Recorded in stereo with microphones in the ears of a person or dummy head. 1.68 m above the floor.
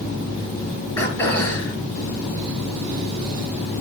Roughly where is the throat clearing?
Centre.